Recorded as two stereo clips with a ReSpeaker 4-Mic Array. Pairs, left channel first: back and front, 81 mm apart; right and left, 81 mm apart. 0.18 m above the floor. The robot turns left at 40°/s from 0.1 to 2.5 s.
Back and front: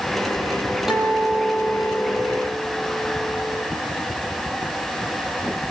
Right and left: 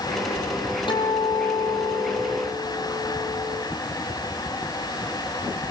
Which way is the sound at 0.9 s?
85° right.